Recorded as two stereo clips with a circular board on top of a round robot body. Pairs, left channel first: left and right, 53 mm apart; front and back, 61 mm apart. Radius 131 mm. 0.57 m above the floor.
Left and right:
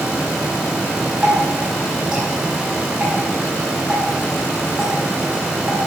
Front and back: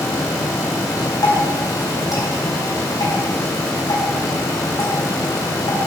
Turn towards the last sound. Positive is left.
turn(degrees=-15)